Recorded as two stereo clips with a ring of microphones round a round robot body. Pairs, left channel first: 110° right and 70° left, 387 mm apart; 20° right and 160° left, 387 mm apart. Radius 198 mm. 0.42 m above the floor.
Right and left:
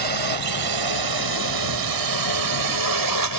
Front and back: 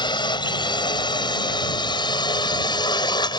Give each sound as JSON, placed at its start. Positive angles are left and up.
{"t": 0.0, "sound": "a drone", "azimuth_deg": 55}